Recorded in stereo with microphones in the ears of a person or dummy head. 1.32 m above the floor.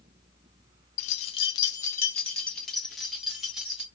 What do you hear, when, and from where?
1.0 s keys jangling: 50° left (ahead or behind), 0.6 m; by 3.8 s 5° right (ahead or behind), 1.8 m